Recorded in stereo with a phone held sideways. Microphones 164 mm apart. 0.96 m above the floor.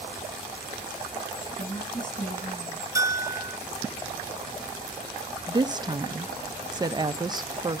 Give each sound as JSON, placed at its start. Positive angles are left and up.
{"t": 1.6, "sound": "a woman speaking", "side_deg": 50, "distance_m": 7.5}
{"t": 3.0, "sound": "a bell", "side_deg": -20, "distance_m": 0.8}
{"t": 5.5, "sound": "a woman speaking", "side_deg": -25, "distance_m": 0.5}